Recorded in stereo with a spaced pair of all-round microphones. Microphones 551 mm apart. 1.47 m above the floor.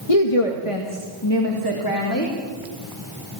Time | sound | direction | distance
0.1 | a woman speaking | 80° left | 1.9 m